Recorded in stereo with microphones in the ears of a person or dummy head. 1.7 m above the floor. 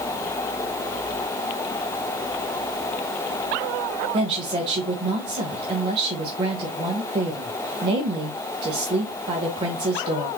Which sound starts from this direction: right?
A woman speaking, at 4.1 s.